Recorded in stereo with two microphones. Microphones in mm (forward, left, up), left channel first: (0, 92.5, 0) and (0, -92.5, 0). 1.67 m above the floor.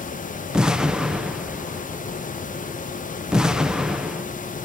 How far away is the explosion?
About 0.6 m.